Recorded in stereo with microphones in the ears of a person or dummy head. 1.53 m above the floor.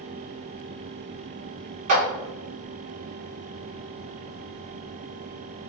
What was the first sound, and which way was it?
A clap, 40° right (ahead or behind).